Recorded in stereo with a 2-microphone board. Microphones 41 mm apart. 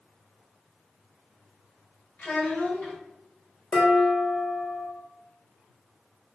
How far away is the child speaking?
About 0.7 m.